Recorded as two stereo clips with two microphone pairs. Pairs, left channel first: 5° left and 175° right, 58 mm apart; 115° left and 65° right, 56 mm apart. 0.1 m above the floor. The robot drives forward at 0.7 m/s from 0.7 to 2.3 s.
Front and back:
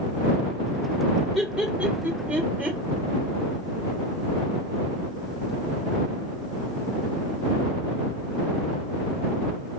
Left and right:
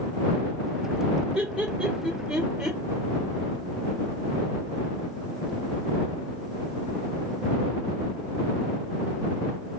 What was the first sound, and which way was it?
Laughter, 105° right.